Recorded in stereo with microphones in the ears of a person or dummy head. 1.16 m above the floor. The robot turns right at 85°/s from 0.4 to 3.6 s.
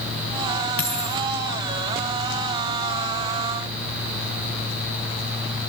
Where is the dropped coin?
45° left, 4.5 m; by 1.2 s 80° left, 4.5 m.